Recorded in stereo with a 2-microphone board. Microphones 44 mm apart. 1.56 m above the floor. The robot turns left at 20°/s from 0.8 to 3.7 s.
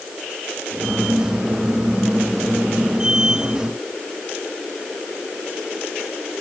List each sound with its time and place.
Only background noise.